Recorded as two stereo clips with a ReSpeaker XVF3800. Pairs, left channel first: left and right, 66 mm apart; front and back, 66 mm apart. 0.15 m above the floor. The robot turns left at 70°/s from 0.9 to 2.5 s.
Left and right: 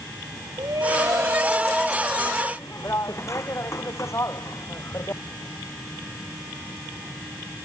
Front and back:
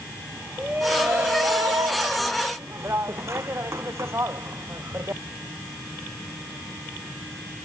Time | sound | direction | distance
0.6 | a shout | 115° right | ?